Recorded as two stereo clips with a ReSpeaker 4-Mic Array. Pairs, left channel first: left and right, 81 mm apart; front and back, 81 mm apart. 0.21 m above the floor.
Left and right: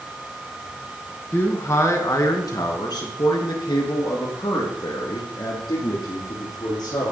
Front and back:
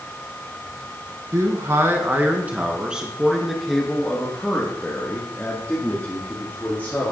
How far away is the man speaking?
About 2 m.